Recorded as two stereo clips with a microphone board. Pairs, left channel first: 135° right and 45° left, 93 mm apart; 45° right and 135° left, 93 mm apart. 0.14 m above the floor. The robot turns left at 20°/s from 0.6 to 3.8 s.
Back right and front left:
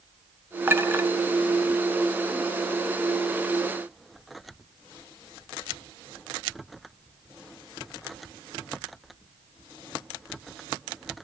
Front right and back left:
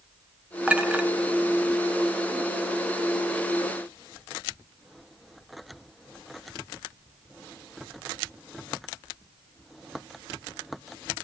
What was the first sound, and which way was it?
A clink, 75° left.